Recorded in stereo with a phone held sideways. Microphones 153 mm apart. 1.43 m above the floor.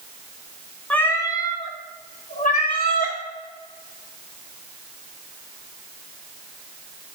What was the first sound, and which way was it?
A cat meowing, 10° left (ahead or behind).